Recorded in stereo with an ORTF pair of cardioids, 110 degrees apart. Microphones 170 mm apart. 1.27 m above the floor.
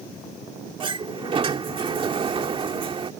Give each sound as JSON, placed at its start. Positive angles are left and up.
{"t": 0.8, "sound": "a sliding door", "azimuth_deg": -30}